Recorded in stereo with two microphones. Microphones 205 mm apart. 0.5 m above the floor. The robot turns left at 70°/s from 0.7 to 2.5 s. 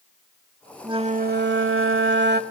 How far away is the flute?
About 0.8 m.